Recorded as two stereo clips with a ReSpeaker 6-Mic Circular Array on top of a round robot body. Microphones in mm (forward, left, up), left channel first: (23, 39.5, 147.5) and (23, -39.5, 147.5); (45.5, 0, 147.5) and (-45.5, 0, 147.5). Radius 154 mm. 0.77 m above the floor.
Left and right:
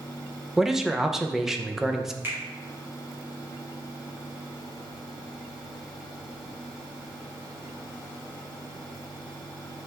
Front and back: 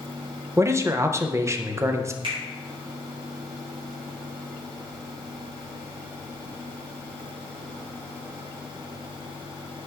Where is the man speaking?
170° right, 0.6 m.